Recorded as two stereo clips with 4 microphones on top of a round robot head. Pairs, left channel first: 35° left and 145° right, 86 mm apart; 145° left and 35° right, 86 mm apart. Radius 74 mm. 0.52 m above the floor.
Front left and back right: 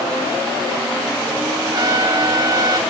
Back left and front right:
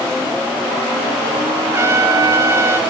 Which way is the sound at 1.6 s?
95° right.